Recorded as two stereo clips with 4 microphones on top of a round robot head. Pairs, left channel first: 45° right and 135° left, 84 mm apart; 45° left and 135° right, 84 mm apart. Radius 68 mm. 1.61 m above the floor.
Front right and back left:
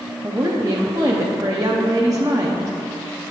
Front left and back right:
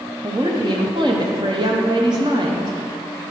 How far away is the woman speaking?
About 0.6 m.